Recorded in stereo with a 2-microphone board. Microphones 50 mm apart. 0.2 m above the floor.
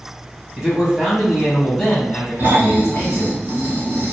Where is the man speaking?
15° right (ahead or behind), 1.3 m; by 3.4 s 45° left (ahead or behind), 1.7 m.